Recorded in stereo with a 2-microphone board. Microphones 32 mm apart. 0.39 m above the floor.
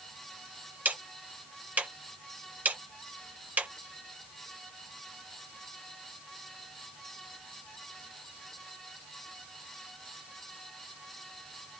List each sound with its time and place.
0.8 s ticking: 65° right (ahead or behind), 1.5 m